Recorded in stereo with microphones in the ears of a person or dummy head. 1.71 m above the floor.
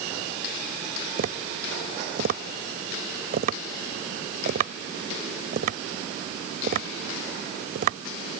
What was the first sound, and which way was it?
Tapping, 55° right (ahead or behind).